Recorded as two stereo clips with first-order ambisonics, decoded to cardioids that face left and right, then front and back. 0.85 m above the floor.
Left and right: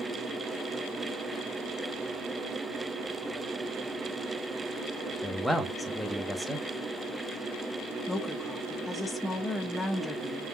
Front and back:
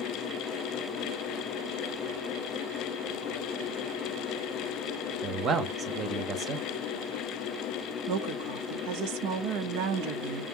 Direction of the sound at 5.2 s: Straight behind.